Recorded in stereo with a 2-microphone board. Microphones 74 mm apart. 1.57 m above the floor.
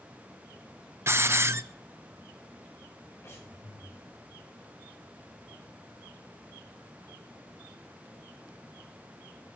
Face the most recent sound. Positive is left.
turn(degrees=35)  # may be behind; listen again after turning